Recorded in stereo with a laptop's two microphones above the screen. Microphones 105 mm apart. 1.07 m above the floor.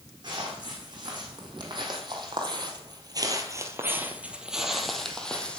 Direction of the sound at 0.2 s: 45° right (ahead or behind).